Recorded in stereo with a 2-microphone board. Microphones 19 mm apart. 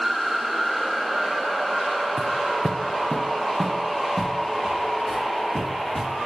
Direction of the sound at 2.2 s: 60° left (ahead or behind).